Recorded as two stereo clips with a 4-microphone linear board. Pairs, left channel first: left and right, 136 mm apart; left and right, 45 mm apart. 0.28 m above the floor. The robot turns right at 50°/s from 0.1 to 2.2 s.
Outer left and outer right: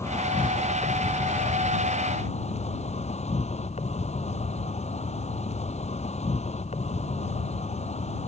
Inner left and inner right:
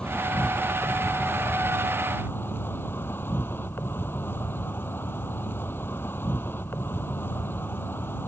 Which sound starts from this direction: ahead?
An insect, at 0.0 s.